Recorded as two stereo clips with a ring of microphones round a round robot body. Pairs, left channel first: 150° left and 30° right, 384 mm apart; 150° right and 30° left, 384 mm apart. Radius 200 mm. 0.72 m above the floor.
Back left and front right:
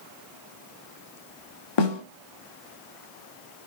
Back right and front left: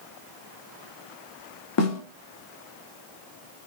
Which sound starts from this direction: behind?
A snare drum, at 1.8 s.